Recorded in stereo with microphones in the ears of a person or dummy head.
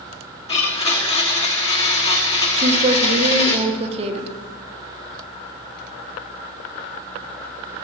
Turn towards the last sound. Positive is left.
turn(degrees=-35)  # may be behind; listen again after turning